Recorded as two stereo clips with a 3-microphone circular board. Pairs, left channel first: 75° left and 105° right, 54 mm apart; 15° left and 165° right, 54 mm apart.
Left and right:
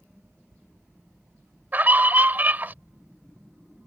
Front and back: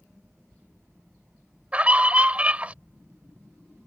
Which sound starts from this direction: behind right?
A scream, at 1.7 s.